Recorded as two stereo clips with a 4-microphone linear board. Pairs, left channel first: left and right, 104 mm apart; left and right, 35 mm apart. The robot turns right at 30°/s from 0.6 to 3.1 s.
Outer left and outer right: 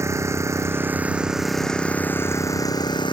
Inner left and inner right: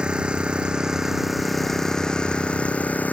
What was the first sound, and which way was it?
An engine running, 30° right.